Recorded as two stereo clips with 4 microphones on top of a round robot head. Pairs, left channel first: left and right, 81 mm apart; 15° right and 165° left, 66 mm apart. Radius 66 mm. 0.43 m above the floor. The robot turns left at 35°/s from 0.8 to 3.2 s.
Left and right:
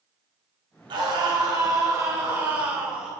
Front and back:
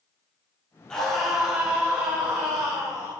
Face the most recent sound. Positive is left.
turn(degrees=-175)